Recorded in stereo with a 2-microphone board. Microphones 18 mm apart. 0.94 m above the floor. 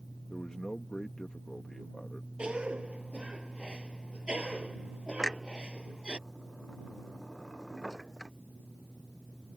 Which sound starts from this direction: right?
A cough, at 2.4 s.